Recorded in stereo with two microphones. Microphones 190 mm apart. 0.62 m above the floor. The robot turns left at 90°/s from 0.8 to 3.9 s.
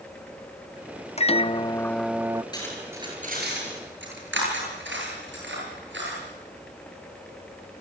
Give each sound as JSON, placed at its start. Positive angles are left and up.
{"t": 1.2, "sound": "a microwave", "azimuth_deg": 80, "distance_m": 0.6}
{"t": 2.5, "sound": "cutlery clinking", "side_deg": 20, "distance_m": 7.5}